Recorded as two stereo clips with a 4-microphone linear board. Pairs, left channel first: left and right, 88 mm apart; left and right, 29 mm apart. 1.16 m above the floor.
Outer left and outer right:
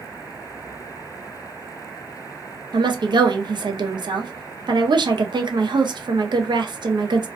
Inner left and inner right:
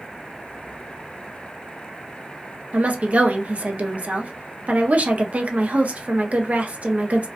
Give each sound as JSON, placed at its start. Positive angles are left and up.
{"t": 2.7, "sound": "a woman speaking", "side_deg": -60, "distance_m": 0.6}